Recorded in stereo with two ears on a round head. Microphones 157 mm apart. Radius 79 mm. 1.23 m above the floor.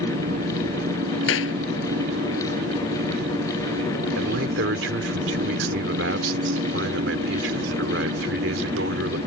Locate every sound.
0.0 s an engine running: 55° right (ahead or behind)
1.3 s a clap: 85° left
4.2 s a man speaking: 70° right (ahead or behind)